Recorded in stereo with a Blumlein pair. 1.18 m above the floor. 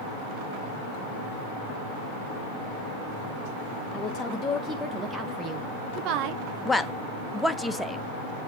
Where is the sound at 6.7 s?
5° left, 0.7 m.